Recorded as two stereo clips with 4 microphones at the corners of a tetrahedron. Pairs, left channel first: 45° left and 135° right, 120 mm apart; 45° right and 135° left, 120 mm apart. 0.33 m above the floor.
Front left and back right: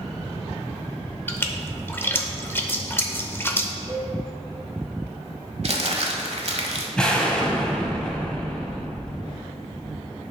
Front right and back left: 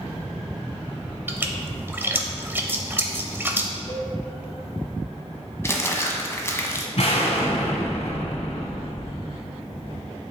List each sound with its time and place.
1.3 s a splash: 95° left, 0.7 m
3.9 s a cowbell: 85° right, 1.7 m
5.6 s crumpling: 110° right, 1.0 m
7.0 s an explosion: 35° right, 1.2 m